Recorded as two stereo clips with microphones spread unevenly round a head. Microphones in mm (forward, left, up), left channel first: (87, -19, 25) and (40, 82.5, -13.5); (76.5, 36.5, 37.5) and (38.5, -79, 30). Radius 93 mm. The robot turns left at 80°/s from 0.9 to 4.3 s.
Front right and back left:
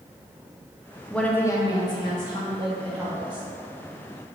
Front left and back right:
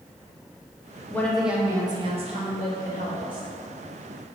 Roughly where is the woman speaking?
Ahead.